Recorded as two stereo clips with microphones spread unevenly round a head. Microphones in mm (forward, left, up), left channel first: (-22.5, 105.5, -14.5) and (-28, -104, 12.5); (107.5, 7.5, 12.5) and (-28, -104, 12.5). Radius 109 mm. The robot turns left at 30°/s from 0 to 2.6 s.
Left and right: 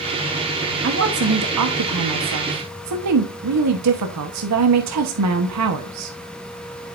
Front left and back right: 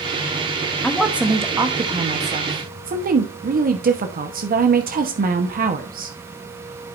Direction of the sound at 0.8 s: 45° right.